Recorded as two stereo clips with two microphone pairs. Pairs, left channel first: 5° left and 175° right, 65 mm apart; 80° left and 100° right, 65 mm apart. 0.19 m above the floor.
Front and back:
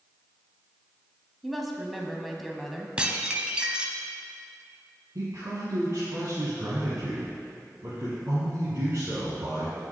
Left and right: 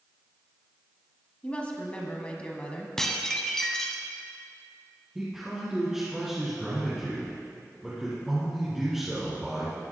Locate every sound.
1.4 s a woman speaking: 95° left, 1.0 m
3.0 s dishes clattering: 150° left, 0.8 m
5.2 s a man speaking: straight behind, 2.5 m